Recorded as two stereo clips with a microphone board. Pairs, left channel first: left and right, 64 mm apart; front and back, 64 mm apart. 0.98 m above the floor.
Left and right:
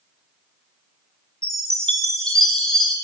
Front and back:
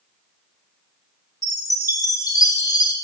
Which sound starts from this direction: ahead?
A chime, at 1.4 s.